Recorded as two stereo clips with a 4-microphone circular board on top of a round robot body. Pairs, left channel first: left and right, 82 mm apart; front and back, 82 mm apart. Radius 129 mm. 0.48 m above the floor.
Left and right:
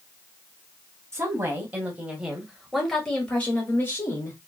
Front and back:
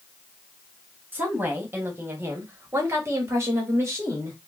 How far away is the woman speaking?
About 1.6 m.